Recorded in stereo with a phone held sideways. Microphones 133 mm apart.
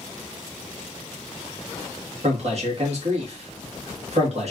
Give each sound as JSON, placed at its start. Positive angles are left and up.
{"t": 2.2, "sound": "a man speaking", "side_deg": -55, "distance_m": 1.4}